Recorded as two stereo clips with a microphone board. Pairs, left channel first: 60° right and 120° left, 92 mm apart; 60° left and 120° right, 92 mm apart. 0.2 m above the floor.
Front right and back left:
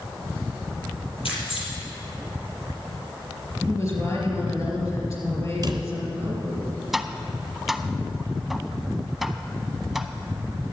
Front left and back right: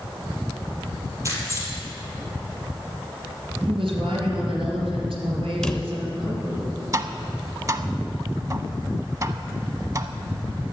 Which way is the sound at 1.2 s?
65° right.